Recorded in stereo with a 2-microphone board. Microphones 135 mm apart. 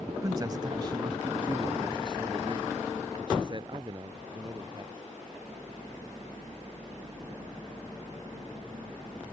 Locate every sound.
0.2 s a man speaking: 25° right (ahead or behind); by 5.0 s 35° right (ahead or behind)